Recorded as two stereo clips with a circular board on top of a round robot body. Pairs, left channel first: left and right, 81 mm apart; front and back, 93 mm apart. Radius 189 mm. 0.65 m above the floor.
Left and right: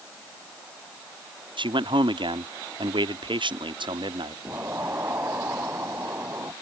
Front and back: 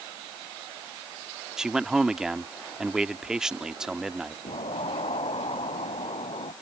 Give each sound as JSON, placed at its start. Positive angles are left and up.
{"t": 1.6, "sound": "a man speaking", "azimuth_deg": -95}
{"t": 4.5, "sound": "an explosion", "azimuth_deg": -30}